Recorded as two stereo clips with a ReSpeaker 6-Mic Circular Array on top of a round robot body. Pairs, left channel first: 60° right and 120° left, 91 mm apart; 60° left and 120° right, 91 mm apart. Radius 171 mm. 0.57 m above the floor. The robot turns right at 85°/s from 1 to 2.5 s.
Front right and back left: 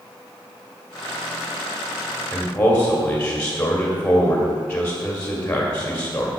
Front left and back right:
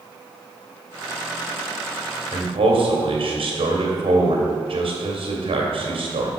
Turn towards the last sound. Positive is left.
turn(degrees=-135)